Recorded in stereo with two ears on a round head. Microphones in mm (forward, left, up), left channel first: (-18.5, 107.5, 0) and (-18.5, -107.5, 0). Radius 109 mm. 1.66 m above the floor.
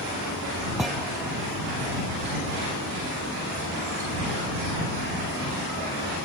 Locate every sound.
0.8 s a thud: centre (ahead or behind)